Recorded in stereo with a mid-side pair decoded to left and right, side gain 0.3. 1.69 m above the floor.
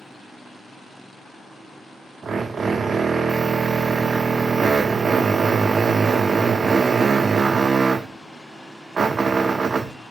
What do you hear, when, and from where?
2.2 s a drill: 60° right, 0.6 m